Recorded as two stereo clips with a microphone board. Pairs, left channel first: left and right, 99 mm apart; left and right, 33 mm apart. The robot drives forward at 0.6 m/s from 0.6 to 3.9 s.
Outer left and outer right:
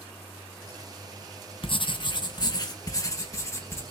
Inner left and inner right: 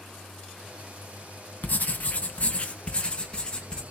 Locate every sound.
1.6 s writing: 55° left (ahead or behind), 1.0 m; by 3.8 s 25° left (ahead or behind), 1.9 m